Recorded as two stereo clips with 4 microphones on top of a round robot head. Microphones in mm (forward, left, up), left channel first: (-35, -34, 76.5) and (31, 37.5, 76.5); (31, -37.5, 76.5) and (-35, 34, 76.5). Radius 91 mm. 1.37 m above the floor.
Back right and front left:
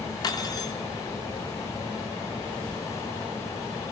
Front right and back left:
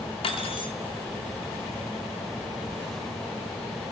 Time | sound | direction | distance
0.2 | cutlery clinking | 80° right | 2.5 m